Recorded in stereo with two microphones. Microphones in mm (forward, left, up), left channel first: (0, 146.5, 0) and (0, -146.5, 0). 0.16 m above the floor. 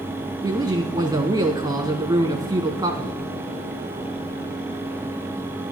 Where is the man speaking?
15° right (ahead or behind), 1.4 m.